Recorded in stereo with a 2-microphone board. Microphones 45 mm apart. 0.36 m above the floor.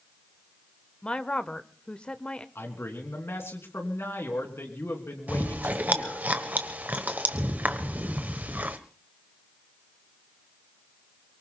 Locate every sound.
1.0 s a woman speaking: 20° left (ahead or behind), 0.8 m
2.5 s a man speaking: 70° left (ahead or behind), 3.5 m
5.3 s chewing: 40° right (ahead or behind), 1.3 m